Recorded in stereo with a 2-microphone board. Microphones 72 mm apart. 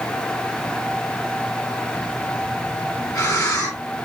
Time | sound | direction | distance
1.9 | breathing | 50° left (ahead or behind) | 1.9 m